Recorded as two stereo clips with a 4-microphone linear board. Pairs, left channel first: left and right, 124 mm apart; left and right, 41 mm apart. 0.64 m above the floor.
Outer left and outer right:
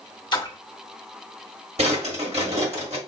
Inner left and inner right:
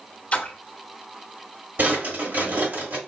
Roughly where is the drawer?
Right.